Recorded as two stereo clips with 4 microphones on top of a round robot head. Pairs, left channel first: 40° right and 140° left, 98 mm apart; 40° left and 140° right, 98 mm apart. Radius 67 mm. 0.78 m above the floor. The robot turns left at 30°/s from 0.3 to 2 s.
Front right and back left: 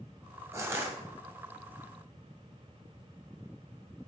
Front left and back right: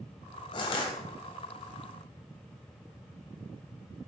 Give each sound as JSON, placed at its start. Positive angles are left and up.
{"t": 0.5, "sound": "crushing", "azimuth_deg": 75, "distance_m": 2.0}